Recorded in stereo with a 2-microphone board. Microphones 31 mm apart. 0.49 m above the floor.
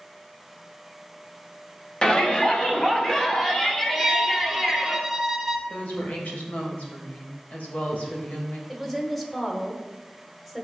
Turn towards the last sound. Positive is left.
turn(degrees=10)  # may be behind; listen again after turning